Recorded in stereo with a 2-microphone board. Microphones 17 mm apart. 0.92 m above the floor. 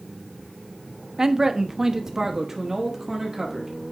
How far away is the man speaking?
About 0.6 m.